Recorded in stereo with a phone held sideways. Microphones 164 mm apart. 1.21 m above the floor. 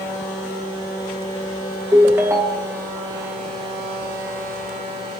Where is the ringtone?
15° right (ahead or behind), 0.6 m.